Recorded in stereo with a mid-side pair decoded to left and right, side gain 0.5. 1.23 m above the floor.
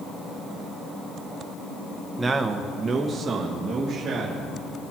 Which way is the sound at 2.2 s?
20° right.